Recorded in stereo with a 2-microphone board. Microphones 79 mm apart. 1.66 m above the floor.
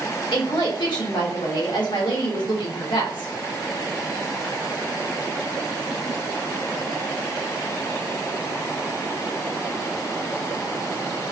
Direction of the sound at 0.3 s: 80° left.